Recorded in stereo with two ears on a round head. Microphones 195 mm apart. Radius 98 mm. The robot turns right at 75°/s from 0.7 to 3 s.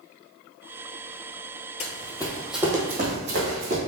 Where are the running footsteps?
30° left (ahead or behind), 0.6 m; by 3.8 s 30° right (ahead or behind), 1.6 m.